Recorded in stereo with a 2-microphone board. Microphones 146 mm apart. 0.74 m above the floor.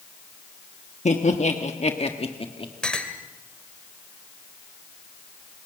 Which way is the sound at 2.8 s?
5° left (ahead or behind).